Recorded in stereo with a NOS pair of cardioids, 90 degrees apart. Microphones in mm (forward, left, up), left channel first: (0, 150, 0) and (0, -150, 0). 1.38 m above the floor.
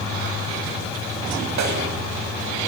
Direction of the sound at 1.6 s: 70° right.